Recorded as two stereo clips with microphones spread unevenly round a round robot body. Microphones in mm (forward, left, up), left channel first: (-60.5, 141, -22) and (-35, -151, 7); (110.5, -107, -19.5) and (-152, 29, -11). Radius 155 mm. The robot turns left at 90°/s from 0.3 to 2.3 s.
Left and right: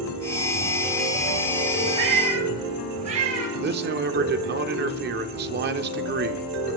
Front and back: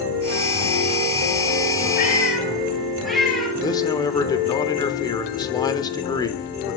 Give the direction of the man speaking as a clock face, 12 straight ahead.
3 o'clock.